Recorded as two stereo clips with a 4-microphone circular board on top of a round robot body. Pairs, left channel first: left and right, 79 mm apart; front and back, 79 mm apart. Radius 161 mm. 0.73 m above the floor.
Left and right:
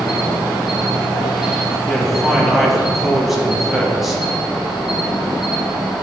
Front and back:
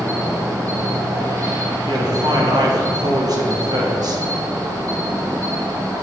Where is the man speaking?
175° right, 1.7 m.